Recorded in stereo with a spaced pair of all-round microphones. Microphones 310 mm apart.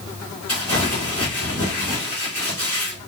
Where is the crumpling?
50° left (ahead or behind), 3 m.